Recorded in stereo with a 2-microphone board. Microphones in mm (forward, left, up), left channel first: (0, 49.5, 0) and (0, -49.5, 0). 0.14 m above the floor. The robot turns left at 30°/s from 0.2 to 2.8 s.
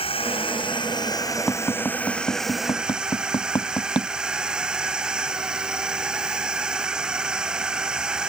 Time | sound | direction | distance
0.0 | a drone | 70° left | ?
1.5 | tapping | 10° left (ahead or behind) | ?